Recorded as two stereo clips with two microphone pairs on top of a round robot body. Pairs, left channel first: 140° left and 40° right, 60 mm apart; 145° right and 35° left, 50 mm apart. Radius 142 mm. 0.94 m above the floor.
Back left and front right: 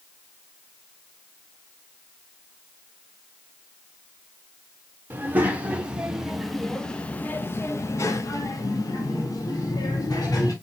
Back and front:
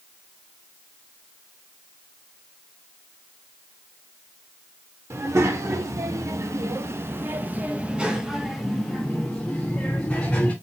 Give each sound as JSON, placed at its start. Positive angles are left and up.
{"t": 5.1, "sound": "a child speaking", "azimuth_deg": 20, "distance_m": 1.5}